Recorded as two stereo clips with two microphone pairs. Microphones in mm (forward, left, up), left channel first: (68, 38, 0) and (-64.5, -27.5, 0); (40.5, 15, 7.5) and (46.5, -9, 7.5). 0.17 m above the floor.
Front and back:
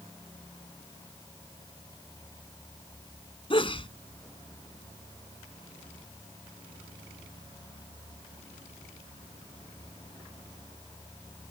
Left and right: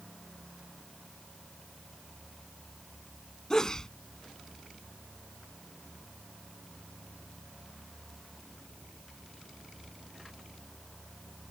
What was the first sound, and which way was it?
A sneeze, 50° left.